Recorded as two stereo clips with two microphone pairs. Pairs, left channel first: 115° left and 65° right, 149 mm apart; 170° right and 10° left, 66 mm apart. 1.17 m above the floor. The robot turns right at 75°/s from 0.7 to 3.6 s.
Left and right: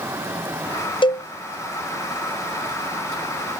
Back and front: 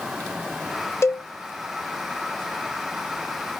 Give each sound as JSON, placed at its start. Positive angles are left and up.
{"t": 1.0, "sound": "a cowbell", "azimuth_deg": 160, "distance_m": 0.6}